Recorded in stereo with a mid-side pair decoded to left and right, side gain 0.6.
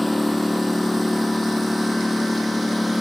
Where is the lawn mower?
5° left.